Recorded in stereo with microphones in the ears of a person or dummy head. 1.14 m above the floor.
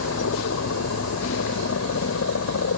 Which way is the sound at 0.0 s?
75° left (ahead or behind).